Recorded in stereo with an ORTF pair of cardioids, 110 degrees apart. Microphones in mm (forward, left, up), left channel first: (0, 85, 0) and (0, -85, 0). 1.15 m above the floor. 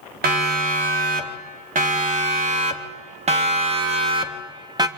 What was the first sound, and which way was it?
A siren, 65° right.